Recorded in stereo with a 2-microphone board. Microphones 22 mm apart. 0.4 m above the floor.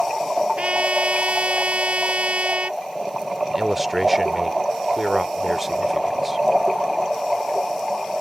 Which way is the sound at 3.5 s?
15° right (ahead or behind).